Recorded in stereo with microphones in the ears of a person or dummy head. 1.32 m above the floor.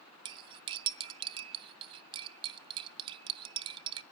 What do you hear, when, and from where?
0.2 s cutlery clinking: 30° right (ahead or behind), 0.5 m